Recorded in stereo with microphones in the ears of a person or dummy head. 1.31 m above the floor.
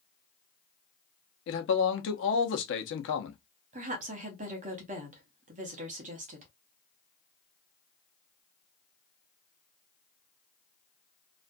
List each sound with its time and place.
1.5 s a man speaking: 55° left (ahead or behind), 0.7 m
3.7 s a woman speaking: 35° right (ahead or behind), 0.6 m